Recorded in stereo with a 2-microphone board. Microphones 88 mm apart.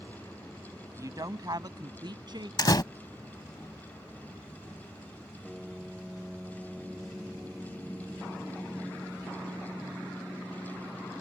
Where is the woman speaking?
40° right (ahead or behind); by 2.5 s 60° right (ahead or behind).